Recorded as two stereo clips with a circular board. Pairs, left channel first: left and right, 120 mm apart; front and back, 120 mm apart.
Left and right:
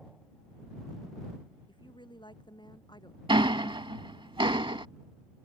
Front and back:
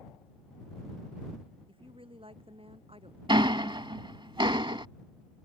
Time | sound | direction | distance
1.7 | a woman speaking | 140° left | ?
3.3 | ticking | 135° right | ?